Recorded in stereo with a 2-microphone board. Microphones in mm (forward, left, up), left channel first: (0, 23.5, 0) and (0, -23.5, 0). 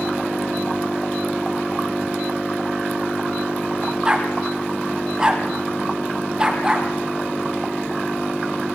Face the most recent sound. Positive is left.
turn(degrees=-15)  # may be behind; listen again after turning